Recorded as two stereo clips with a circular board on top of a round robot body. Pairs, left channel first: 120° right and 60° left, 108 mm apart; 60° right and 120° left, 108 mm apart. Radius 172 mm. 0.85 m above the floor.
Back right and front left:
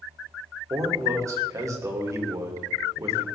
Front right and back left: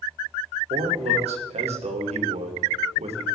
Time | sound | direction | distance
0.7 | a man speaking | 120° left | 3 m